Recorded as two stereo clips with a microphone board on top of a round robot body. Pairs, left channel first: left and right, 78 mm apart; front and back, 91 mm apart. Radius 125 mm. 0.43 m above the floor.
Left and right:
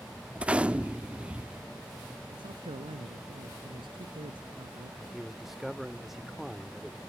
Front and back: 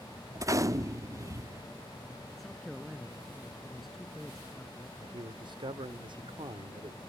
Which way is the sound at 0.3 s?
155° right.